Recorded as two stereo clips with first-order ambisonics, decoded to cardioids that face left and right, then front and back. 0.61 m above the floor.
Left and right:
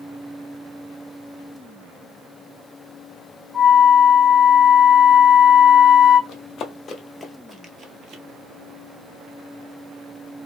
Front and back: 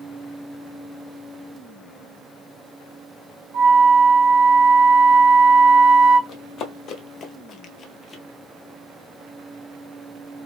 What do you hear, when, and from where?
3.5 s a flute: straight behind, 1.3 m
6.3 s running footsteps: 45° left, 0.9 m; by 8.2 s 75° right, 0.7 m